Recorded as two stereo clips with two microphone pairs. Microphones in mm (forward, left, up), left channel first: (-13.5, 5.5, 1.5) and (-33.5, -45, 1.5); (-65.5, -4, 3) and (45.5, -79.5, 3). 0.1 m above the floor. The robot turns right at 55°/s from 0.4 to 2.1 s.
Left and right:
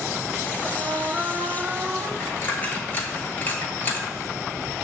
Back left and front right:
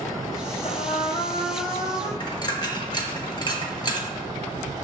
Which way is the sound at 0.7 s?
Straight behind.